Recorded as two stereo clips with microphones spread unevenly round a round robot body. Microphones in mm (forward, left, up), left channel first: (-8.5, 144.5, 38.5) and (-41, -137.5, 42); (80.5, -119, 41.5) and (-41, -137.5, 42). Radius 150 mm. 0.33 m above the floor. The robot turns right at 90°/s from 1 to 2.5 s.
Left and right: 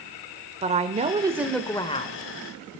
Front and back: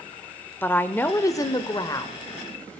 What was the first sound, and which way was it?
A woman speaking, 50° right.